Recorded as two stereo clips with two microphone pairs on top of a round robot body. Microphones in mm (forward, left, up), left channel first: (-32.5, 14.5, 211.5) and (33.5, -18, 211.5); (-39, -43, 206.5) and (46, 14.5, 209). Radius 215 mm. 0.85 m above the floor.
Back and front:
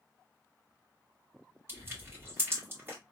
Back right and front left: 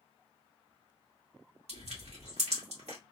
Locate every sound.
1.7 s crushing: 30° left, 1.9 m